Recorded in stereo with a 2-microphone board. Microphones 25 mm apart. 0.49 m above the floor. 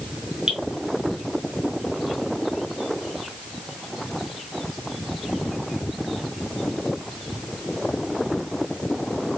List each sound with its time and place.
0.5 s dripping: 45° right (ahead or behind), 2.5 m